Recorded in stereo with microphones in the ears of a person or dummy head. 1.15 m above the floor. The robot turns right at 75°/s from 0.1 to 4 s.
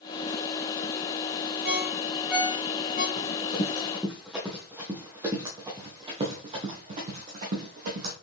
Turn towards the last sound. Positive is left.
turn(degrees=-50)  # may be behind; listen again after turning